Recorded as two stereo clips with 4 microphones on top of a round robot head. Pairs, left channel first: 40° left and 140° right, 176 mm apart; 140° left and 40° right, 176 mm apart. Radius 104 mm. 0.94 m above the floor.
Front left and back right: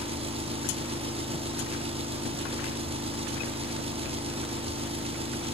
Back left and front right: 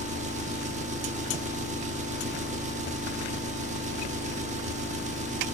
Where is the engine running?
85° right, 1.1 m.